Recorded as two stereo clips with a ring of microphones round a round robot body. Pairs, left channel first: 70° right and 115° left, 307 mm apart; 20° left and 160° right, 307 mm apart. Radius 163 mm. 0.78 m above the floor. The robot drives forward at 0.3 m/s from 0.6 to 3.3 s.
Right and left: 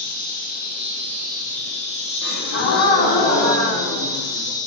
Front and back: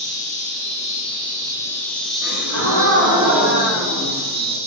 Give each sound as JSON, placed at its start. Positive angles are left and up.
{"t": 0.0, "sound": "an insect", "azimuth_deg": -25, "distance_m": 1.2}
{"t": 2.2, "sound": "a gasp", "azimuth_deg": -115, "distance_m": 1.2}